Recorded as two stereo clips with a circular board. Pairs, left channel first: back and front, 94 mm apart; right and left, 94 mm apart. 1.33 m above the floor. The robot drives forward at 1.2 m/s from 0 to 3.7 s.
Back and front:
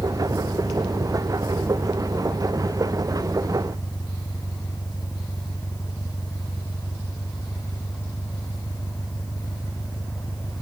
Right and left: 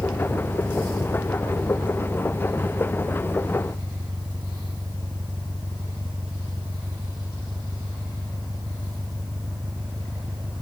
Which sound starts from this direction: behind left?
An engine running, at 0.0 s.